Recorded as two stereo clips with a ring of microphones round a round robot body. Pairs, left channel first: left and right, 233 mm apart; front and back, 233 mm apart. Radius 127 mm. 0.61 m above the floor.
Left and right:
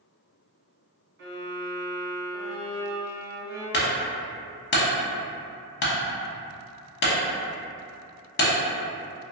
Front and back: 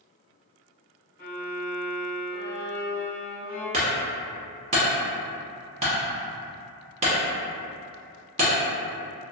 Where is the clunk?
120° left, 0.6 m.